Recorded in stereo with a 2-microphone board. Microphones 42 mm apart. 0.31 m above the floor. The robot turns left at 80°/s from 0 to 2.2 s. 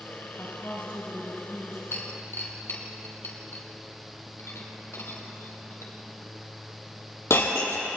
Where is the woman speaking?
110° left, 4.5 m; by 1.8 s 5° right, 4.5 m.